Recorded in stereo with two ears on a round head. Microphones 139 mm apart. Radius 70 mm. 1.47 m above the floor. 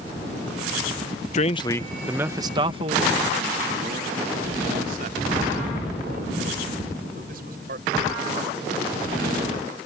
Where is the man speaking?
45° left (ahead or behind); by 9.3 s 60° right (ahead or behind).